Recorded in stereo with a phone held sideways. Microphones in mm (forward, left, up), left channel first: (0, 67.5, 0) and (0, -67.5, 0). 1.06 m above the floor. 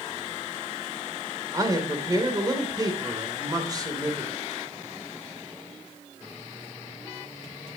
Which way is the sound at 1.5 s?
30° right (ahead or behind).